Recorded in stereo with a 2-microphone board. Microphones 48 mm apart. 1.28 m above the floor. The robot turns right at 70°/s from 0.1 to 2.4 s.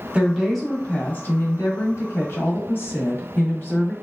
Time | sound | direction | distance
0.1 | a woman speaking | 25° right | 1.1 m